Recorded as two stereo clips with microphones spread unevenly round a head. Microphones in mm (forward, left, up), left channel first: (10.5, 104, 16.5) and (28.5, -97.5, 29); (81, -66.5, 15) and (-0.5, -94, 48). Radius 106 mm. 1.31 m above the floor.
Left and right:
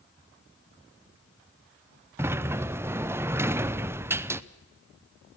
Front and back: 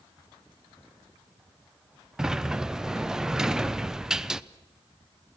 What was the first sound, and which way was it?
A sliding door, 20° right.